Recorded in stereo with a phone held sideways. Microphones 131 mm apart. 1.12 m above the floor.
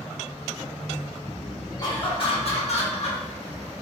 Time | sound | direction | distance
1.8 | laughter | 30° left (ahead or behind) | 1.6 m